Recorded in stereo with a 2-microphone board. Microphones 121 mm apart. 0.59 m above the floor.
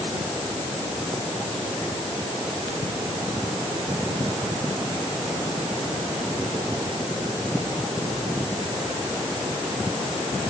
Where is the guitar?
I don't hear a guitar.